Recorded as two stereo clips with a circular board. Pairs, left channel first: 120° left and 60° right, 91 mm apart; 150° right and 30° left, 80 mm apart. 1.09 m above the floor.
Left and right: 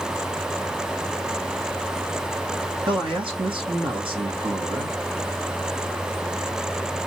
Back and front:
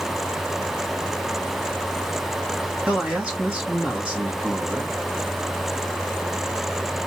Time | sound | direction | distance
2.9 | a man speaking | 45° right | 2 m